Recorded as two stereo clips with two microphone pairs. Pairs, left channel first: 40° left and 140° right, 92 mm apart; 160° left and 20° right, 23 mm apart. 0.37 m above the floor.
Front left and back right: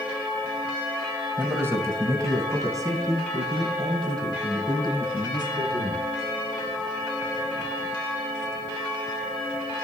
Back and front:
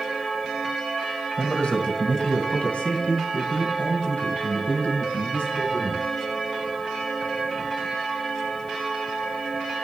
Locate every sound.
1.4 s a man speaking: 150° left, 1.7 m; by 6.0 s straight behind, 5 m